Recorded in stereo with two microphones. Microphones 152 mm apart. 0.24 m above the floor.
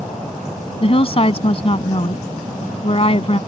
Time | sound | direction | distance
0.8 | a woman speaking | 45° left (ahead or behind) | ?